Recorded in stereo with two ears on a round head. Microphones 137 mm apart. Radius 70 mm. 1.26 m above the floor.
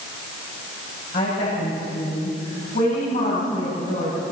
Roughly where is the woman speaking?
Left.